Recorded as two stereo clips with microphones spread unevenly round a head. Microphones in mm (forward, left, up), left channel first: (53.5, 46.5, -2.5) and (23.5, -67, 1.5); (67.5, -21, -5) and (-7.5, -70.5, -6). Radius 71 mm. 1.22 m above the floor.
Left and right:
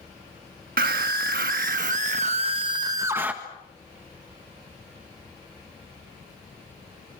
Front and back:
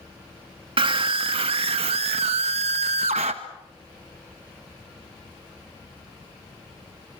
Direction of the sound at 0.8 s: 125° right.